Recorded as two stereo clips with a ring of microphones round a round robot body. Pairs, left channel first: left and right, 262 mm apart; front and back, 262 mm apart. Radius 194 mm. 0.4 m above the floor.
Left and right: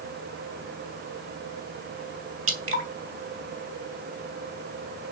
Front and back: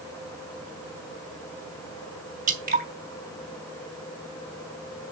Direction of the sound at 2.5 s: 125° right.